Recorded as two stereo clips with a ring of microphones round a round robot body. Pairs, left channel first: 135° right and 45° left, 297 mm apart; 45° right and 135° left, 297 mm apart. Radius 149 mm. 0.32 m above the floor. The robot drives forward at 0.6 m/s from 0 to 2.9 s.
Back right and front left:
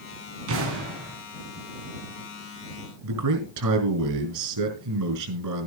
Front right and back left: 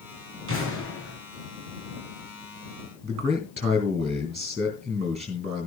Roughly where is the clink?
I don't hear a clink.